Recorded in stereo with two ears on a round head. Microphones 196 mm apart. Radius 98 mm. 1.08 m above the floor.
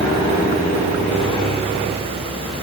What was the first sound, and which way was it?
Only background noise.